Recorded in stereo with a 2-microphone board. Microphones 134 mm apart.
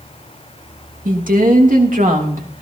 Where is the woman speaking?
85° right, 2.5 m; by 2.6 s 80° right, 3 m.